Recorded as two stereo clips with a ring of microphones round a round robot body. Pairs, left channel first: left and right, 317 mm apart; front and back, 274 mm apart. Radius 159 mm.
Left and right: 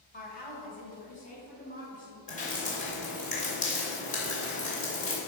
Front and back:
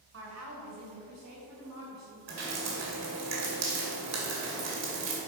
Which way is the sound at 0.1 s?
150° left.